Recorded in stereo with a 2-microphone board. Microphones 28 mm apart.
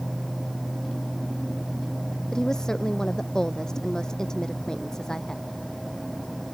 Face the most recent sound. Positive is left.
turn(degrees=20)  # may be behind; listen again after turning